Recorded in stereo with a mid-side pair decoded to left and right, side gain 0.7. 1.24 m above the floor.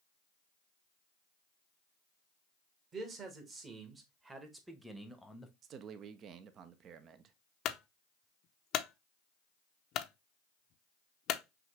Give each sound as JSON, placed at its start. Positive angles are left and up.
{"t": 2.9, "sound": "a man speaking", "azimuth_deg": -35, "distance_m": 1.9}
{"t": 5.6, "sound": "a man speaking", "azimuth_deg": -45, "distance_m": 0.7}
{"t": 7.7, "sound": "a clunk", "azimuth_deg": 50, "distance_m": 0.5}